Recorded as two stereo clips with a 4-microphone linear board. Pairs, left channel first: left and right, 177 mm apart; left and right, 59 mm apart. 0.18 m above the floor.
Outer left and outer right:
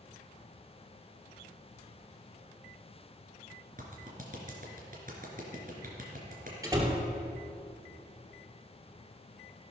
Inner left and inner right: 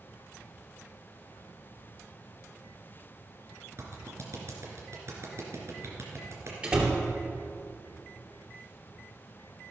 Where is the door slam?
20° right (ahead or behind), 2.5 m.